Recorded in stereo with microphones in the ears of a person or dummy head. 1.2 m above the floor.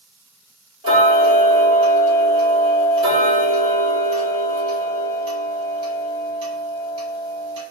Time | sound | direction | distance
0.8 | ticking | 30° right (ahead or behind) | 1.3 m